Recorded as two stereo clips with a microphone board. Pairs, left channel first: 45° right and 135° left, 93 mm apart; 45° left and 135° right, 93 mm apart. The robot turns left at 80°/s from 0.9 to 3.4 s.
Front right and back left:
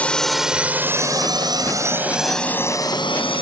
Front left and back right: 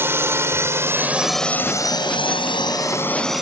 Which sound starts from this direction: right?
A drone, at 0.0 s.